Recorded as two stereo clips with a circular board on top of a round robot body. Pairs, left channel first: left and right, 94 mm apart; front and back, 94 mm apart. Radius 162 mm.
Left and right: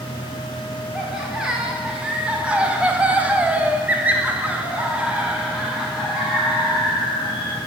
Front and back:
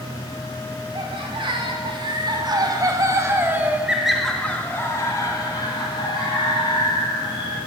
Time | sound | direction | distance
0.9 | laughter | 170° right | 2.0 m